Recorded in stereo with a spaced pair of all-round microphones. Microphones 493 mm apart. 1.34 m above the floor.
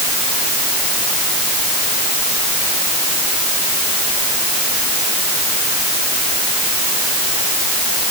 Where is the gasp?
No gasp in this recording.